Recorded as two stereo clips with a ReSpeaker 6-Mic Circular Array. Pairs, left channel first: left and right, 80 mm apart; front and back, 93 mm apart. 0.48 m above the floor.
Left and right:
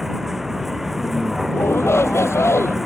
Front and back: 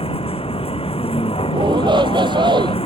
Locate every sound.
0.0 s a vehicle: 5° right
1.5 s a shout: 145° left